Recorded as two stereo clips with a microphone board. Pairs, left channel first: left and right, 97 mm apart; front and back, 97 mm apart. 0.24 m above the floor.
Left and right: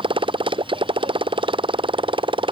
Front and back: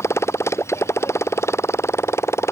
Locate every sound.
0.0 s a motorcycle: 60° right